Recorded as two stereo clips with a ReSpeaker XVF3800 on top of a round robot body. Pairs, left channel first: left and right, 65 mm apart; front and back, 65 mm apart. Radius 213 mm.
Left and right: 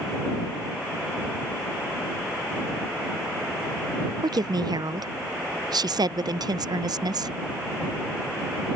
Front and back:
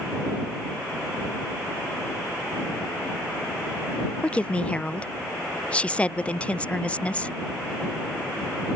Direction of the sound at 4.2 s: 75° right.